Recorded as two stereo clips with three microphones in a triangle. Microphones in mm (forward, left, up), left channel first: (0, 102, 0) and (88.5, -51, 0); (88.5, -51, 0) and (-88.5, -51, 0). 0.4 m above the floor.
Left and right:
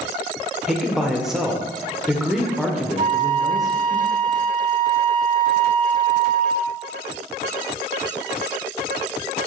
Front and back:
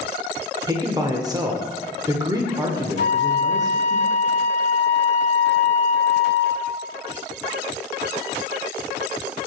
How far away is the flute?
About 0.6 m.